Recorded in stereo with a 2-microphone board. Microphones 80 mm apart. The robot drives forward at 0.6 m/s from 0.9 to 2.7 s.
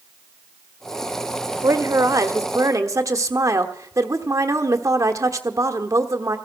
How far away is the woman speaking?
About 1.3 m.